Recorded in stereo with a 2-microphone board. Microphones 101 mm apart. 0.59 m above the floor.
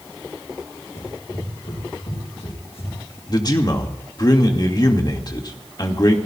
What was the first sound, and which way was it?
Running footsteps, 85° left.